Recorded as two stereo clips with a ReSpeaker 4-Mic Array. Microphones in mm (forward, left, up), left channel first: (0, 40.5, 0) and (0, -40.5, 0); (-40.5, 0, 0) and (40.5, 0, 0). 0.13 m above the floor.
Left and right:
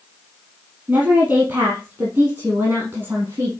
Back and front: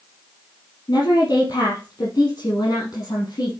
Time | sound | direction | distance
0.9 | a woman speaking | 155° right | 3.5 m